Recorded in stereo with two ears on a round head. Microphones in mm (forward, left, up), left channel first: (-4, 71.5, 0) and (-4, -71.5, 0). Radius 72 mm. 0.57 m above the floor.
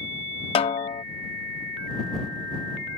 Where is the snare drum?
35° left (ahead or behind).